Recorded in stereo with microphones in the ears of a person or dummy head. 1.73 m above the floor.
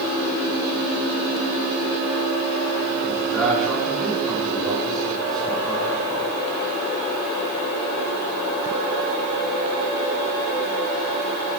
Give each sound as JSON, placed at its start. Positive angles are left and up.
{"t": 3.0, "sound": "a man speaking", "side_deg": 0, "distance_m": 4.0}